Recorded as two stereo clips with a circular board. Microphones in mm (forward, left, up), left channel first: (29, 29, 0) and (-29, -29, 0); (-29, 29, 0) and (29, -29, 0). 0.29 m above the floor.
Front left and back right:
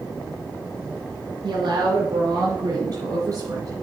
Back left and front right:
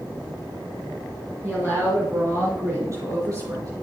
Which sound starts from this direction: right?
A woman speaking, at 1.4 s.